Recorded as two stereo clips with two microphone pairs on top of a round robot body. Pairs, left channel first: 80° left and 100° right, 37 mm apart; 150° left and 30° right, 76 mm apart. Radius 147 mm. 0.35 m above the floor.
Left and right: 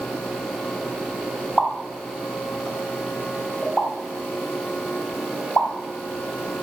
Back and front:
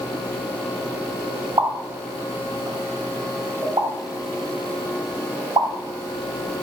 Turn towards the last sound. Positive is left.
turn(degrees=5)